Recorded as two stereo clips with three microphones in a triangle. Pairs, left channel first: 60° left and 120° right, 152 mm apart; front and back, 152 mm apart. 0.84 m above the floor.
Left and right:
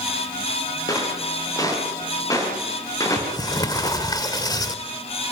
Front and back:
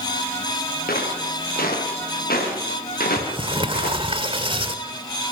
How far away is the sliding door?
About 1.5 m.